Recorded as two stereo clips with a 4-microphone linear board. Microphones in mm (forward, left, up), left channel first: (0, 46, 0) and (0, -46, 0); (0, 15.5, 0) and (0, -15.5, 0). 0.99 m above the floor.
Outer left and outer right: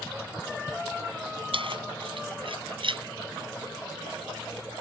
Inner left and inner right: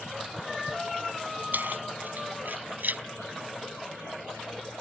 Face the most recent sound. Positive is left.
turn(degrees=-70)  # may be behind; listen again after turning